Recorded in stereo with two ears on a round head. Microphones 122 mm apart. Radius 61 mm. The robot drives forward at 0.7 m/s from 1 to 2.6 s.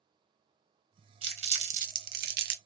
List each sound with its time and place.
1.2 s crumpling: 40° right (ahead or behind), 1.0 m; by 2.5 s 70° right (ahead or behind), 0.7 m